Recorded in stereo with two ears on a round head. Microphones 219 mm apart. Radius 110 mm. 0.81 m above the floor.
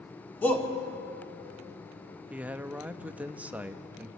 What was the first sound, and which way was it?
A shout, 10° left (ahead or behind).